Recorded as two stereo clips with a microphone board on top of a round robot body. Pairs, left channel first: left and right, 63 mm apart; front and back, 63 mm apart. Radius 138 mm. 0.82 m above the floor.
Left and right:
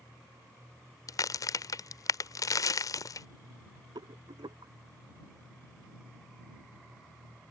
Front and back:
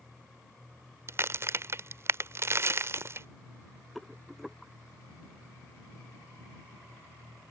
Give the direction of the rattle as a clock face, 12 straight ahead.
3 o'clock.